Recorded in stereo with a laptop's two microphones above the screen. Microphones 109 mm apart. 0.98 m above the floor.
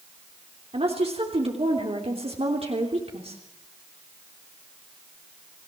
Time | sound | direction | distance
0.7 | a woman speaking | 65° right (ahead or behind) | 3 m